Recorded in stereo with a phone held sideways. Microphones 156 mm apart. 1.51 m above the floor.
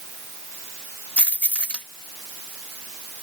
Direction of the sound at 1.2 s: 5° left (ahead or behind).